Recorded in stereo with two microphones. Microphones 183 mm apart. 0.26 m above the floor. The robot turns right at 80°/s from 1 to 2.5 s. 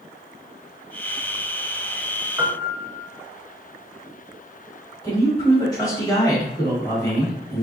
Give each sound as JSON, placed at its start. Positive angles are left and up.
{"t": 2.4, "sound": "a piano", "side_deg": -20, "distance_m": 0.5}
{"t": 5.0, "sound": "a man speaking", "side_deg": 20, "distance_m": 1.4}